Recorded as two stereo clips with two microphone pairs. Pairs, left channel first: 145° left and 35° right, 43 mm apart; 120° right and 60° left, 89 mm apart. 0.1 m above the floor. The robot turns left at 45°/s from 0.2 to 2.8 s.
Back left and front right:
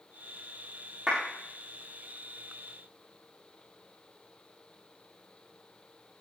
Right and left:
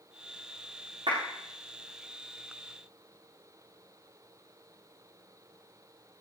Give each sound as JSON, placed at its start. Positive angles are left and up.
{"t": 1.1, "sound": "a clap", "azimuth_deg": 35, "distance_m": 8.5}